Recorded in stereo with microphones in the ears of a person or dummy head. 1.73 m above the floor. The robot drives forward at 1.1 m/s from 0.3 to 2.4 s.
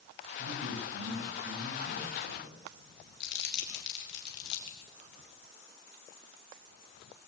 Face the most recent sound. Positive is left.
turn(degrees=70)  # may be behind; listen again after turning